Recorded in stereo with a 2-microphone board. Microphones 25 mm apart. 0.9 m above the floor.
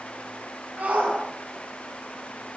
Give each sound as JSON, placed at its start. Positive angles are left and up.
{"t": 0.8, "sound": "a shout", "side_deg": -85, "distance_m": 9.5}